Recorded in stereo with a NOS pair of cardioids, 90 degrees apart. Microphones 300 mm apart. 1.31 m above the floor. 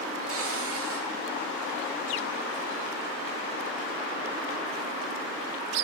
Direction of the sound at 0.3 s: 50° right.